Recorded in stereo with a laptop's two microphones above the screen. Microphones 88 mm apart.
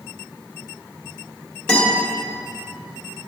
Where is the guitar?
10° left (ahead or behind), 1.7 m.